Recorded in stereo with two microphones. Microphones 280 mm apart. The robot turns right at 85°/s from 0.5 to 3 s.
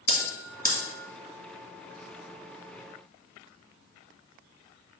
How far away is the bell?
About 2 m.